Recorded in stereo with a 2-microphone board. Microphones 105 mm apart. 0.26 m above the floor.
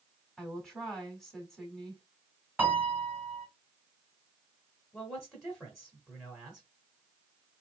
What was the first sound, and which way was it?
A woman speaking, 5° left (ahead or behind).